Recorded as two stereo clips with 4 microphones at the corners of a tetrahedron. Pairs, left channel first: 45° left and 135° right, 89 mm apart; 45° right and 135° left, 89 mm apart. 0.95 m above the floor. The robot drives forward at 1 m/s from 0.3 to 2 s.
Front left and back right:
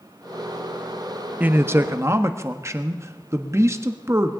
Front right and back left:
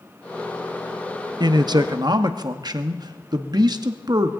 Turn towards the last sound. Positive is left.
turn(degrees=170)